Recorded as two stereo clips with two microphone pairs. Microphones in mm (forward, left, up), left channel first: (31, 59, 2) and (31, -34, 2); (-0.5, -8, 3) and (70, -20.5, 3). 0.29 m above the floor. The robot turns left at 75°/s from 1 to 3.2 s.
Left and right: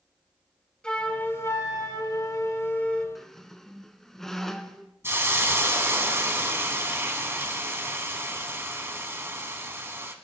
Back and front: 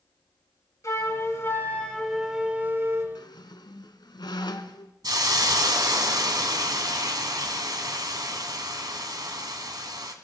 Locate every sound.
0.8 s a flute: 165° left, 1.4 m; by 3.0 s 10° left, 1.4 m
3.1 s a squeak: straight behind, 0.8 m; by 4.9 s 175° left, 0.8 m
5.0 s a hiss: 25° right, 1.2 m